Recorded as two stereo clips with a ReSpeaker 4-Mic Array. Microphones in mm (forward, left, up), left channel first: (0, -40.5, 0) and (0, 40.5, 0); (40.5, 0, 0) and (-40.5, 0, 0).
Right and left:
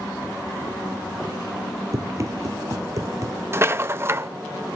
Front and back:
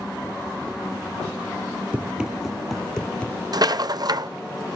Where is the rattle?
150° left, 0.7 m.